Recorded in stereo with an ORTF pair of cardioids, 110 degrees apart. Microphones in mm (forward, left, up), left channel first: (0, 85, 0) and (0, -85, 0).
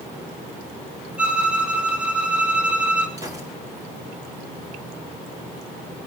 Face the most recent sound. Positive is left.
turn(degrees=-20)